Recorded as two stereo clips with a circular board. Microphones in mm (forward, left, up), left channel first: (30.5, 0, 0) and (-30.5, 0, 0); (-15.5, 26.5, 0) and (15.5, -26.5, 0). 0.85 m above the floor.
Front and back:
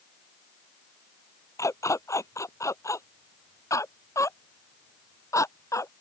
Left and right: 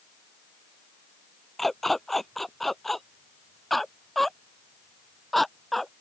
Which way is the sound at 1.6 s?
35° left.